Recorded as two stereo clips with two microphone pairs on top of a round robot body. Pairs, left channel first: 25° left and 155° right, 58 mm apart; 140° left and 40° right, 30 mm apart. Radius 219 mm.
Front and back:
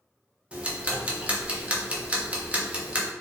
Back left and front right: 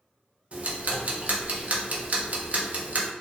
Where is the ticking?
85° right, 0.6 m.